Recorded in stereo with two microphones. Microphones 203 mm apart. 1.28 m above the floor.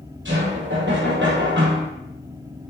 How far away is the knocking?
About 4 m.